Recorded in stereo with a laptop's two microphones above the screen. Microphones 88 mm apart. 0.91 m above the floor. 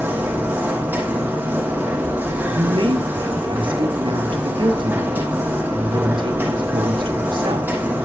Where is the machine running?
20° right (ahead or behind), 6 m.